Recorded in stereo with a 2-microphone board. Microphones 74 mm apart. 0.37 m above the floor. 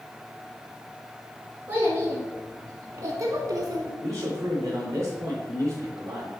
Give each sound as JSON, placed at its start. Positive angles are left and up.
{"t": 1.7, "sound": "a child speaking", "side_deg": -30, "distance_m": 2.5}
{"t": 4.0, "sound": "a man speaking", "side_deg": -40, "distance_m": 3.0}